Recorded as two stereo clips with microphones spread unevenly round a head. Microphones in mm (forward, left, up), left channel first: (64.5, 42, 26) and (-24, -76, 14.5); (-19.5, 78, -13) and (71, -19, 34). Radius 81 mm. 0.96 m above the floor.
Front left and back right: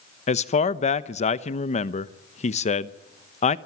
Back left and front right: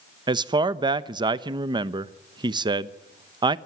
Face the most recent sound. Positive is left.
turn(degrees=20)